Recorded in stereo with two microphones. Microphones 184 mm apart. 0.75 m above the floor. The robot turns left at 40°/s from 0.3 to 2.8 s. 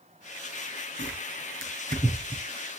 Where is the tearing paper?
80° right, 3.5 m; by 2.4 s 25° right (ahead or behind), 3.5 m.